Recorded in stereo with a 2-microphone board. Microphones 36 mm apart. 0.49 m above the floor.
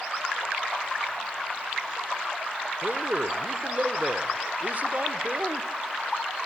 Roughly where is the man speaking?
Right.